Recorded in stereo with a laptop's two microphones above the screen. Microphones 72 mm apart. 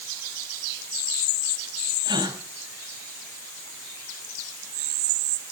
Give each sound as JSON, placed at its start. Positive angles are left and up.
{"t": 2.0, "sound": "a gasp", "side_deg": -75, "distance_m": 3.0}